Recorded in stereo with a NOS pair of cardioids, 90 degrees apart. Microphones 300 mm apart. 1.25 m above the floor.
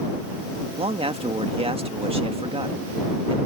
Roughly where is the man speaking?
Ahead.